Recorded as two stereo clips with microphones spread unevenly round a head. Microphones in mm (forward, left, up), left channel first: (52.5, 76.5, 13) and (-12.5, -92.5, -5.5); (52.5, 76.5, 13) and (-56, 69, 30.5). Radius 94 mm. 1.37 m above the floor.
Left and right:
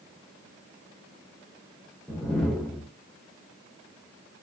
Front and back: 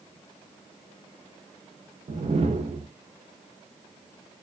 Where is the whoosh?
160° left, 0.5 m.